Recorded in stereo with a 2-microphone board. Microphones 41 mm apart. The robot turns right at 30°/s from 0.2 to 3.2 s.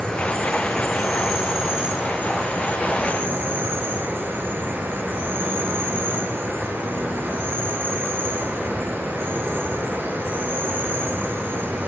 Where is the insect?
160° left, 8 m; by 11.9 s 110° right, 8 m.